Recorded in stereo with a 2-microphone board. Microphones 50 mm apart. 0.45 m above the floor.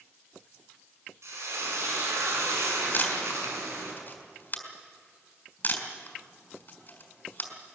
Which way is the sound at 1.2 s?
70° right (ahead or behind).